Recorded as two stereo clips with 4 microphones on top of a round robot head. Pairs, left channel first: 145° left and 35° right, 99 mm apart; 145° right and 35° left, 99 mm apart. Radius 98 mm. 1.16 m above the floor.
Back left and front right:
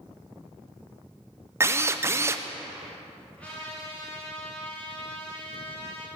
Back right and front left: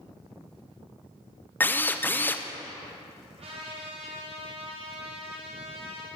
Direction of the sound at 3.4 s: 60° left.